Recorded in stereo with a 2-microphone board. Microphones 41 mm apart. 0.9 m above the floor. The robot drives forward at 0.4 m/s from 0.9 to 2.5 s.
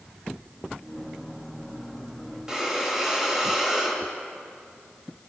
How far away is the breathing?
About 3 m.